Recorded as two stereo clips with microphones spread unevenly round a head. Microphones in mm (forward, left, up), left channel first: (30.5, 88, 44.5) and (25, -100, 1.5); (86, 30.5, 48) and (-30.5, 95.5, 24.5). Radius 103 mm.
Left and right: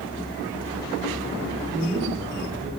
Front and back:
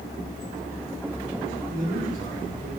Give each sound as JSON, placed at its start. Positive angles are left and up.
{"t": 1.7, "sound": "a man speaking", "azimuth_deg": -170, "distance_m": 4.0}